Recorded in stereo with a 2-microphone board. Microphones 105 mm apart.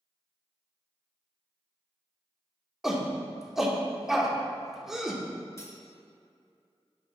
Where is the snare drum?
I don't hear a snare drum.